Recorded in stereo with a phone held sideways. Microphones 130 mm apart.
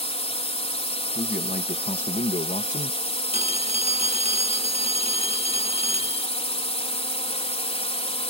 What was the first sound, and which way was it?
A drone, 50° left (ahead or behind).